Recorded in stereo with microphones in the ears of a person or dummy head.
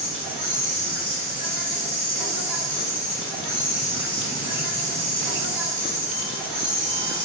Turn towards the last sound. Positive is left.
turn(degrees=35)  # may be behind; listen again after turning